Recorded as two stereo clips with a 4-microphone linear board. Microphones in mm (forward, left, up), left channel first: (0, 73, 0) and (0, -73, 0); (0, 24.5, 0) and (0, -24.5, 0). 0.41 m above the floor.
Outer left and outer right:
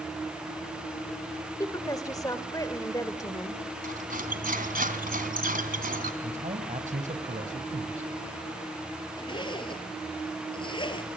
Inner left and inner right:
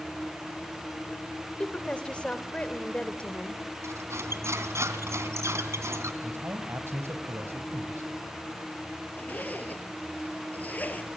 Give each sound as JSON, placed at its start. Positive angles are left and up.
{"t": 1.6, "sound": "a woman speaking", "side_deg": 25, "distance_m": 1.5}
{"t": 3.8, "sound": "cutlery clinking", "side_deg": -75, "distance_m": 2.5}
{"t": 6.2, "sound": "a man speaking", "side_deg": -60, "distance_m": 2.5}
{"t": 9.2, "sound": "a zipper", "side_deg": 35, "distance_m": 1.9}